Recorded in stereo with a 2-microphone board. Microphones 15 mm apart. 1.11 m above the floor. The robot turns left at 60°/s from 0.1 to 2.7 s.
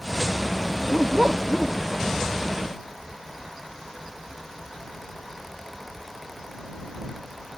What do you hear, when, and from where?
0.7 s a dog barking: 85° right; by 1.9 s 160° right